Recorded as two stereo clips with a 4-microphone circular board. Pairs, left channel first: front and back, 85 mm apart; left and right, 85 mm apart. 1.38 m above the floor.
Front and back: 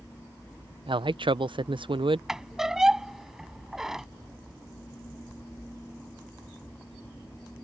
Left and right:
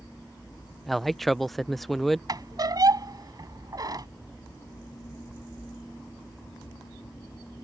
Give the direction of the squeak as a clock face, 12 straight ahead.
3 o'clock.